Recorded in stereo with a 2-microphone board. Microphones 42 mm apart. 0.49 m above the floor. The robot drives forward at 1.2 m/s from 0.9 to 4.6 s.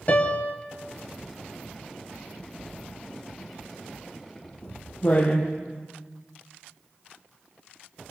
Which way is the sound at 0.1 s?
45° left (ahead or behind).